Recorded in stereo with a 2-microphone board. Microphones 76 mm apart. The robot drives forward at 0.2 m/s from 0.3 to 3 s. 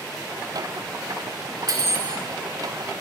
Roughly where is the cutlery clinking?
Right.